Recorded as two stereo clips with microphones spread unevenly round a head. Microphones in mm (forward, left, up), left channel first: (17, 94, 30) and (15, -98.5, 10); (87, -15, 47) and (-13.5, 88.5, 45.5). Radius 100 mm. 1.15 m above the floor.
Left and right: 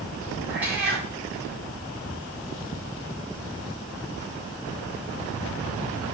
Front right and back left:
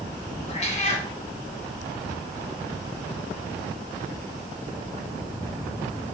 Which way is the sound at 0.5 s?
10° right.